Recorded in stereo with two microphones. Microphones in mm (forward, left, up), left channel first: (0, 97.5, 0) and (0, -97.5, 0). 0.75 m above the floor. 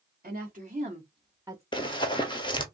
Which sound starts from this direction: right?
A woman speaking, at 0.2 s.